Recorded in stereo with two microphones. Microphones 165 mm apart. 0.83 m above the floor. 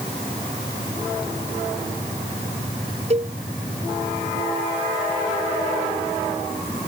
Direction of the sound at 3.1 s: 40° right (ahead or behind).